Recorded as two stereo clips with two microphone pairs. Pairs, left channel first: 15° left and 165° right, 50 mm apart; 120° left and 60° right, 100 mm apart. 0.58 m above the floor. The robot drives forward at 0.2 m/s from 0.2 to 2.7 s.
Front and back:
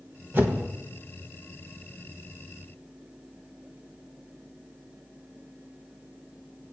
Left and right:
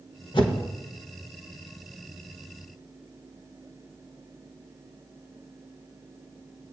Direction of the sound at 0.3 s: 150° left.